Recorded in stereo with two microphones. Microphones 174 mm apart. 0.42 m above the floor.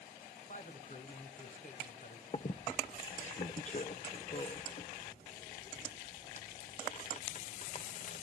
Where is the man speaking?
50° left (ahead or behind), 3 m.